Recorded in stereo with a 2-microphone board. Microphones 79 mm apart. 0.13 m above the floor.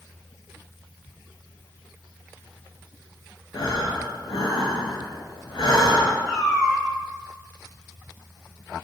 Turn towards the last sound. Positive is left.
turn(degrees=-10)  # may be behind; listen again after turning